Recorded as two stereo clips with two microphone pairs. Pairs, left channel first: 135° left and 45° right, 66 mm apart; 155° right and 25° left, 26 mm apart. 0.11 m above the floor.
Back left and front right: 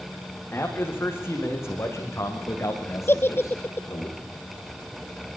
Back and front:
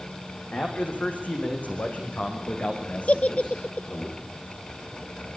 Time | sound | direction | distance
0.5 | a man speaking | 165° right | 6.5 m
3.1 | a giggle | 175° right | 0.9 m